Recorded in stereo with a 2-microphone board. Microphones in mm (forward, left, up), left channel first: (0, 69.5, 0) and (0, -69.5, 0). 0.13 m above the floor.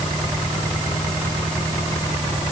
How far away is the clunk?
I don't hear a clunk.